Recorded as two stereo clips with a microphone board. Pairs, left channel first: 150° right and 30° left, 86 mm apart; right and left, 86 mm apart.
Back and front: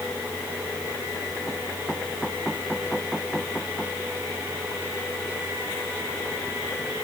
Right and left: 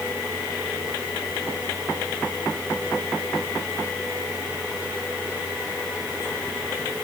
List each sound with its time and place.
Only background noise.